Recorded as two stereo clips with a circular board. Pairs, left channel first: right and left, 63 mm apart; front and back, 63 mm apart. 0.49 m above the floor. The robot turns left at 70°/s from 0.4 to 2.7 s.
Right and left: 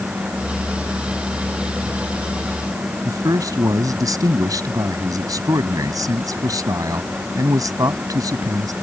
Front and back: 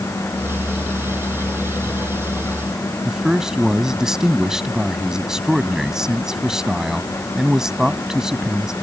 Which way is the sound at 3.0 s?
100° left.